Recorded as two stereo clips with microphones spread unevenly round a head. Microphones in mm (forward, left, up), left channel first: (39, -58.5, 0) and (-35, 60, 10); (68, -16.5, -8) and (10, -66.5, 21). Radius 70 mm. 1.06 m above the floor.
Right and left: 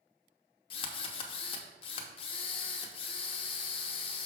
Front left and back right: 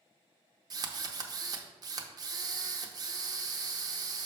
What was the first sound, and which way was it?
A drill, 115° right.